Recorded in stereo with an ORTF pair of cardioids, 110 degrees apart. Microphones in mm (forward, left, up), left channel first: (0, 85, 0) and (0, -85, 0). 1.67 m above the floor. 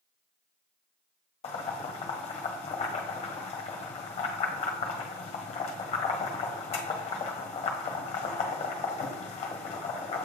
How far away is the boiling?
About 1.3 m.